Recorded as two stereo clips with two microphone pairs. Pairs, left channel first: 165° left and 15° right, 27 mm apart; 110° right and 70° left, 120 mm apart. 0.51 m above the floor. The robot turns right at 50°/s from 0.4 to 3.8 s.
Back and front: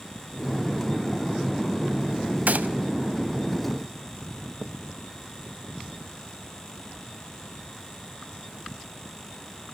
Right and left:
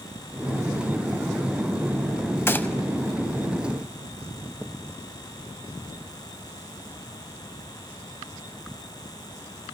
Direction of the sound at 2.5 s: 40° right.